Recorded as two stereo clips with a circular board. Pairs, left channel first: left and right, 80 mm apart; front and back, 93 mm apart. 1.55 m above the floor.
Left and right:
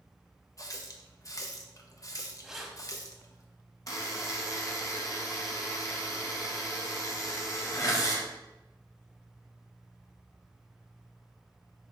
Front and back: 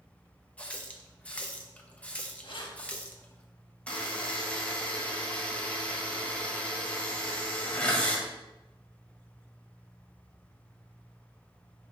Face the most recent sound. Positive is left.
turn(degrees=70)